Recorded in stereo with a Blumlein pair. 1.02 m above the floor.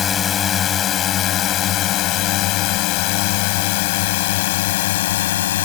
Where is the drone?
25° left; by 5.7 s 55° left.